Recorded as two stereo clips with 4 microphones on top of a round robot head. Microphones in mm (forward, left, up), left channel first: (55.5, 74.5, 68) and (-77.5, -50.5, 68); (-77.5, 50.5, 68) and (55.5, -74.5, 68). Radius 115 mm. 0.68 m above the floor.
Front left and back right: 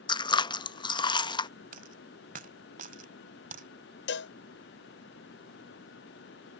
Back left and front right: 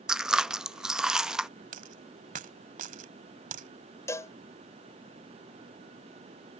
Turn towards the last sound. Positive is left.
turn(degrees=60)